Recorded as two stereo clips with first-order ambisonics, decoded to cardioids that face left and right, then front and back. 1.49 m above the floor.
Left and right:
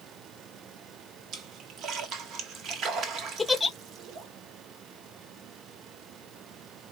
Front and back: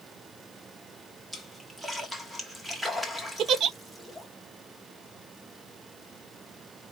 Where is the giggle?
165° left, 0.5 m.